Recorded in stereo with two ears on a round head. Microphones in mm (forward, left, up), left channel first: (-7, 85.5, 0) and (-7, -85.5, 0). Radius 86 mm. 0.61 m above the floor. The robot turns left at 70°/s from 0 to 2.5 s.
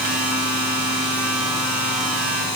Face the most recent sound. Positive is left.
No sound to turn to.